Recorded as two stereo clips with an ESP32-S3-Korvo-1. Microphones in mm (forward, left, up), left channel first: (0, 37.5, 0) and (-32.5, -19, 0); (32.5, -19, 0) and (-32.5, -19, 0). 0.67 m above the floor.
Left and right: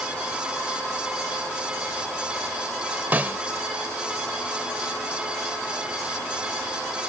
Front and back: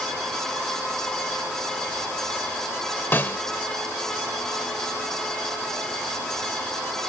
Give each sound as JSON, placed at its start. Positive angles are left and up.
{"t": 3.1, "sound": "a snare drum", "azimuth_deg": -60}